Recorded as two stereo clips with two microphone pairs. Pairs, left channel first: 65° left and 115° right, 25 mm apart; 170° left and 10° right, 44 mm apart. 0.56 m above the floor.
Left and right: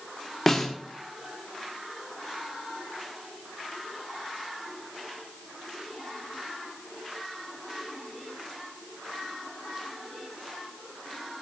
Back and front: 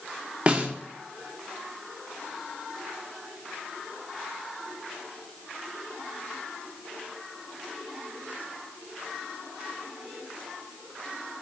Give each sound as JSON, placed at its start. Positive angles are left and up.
{"t": 0.5, "sound": "a snare drum", "azimuth_deg": 0, "distance_m": 1.0}